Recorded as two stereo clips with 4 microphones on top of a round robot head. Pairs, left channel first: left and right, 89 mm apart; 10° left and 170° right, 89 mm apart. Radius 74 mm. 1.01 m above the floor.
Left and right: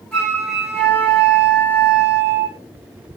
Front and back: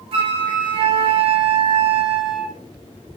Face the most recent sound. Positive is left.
turn(degrees=175)